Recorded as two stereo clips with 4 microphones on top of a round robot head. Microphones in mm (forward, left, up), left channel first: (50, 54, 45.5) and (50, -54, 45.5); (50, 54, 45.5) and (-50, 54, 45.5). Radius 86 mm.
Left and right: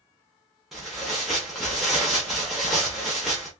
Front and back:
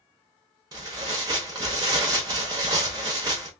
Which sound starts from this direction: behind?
Tearing paper, at 0.7 s.